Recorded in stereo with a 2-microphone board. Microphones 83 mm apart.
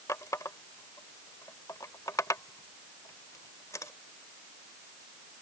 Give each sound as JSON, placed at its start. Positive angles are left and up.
{"t": 0.1, "sound": "a running tap", "side_deg": 40}